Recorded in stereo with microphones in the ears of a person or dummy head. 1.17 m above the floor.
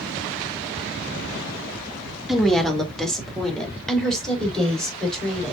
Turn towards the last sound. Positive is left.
turn(degrees=0)  # may be behind; listen again after turning